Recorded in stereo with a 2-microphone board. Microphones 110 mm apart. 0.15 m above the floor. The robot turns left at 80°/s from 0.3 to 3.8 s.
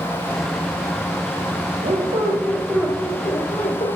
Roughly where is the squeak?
Right.